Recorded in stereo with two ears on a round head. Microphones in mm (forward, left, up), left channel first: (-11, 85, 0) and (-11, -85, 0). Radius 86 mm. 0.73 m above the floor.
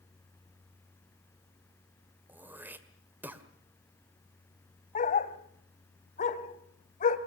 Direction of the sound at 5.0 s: 40° left (ahead or behind).